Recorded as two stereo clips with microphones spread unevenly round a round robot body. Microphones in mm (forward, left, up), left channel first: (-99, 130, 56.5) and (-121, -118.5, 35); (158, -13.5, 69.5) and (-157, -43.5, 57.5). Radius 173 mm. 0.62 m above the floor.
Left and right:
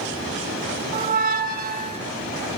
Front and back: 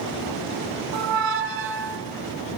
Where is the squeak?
135° right, 0.6 m.